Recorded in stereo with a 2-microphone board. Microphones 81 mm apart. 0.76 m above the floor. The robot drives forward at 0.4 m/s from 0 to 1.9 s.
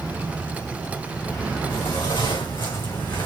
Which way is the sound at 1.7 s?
80° left.